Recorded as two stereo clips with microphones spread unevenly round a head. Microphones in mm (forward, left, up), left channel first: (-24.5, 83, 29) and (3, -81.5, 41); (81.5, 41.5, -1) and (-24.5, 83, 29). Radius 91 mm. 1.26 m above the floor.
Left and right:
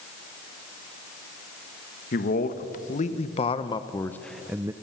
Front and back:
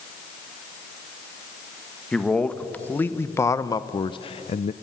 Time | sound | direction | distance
2.1 | a man speaking | 60° left | 1.5 m